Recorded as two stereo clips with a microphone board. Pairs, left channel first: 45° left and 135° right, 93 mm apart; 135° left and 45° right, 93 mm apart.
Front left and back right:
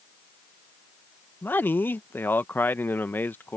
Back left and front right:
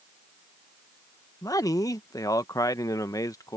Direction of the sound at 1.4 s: 105° left.